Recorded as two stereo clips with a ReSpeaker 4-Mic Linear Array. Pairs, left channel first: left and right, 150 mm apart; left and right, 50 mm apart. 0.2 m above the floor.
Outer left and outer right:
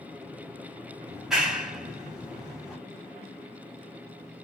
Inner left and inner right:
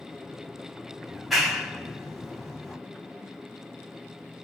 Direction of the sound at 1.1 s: 5° right (ahead or behind).